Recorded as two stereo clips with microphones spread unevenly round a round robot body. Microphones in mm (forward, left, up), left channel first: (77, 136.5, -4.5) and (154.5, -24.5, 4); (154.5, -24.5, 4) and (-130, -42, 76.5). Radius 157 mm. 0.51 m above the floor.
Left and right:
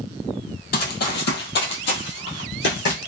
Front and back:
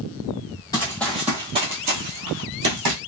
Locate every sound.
0.7 s running footsteps: 90° left, 1.0 m; by 3.0 s 160° left, 1.3 m